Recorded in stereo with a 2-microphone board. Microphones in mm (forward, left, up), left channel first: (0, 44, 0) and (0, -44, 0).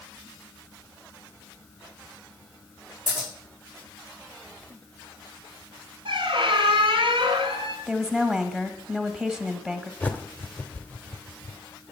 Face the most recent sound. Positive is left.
turn(degrees=15)  # may be behind; listen again after turning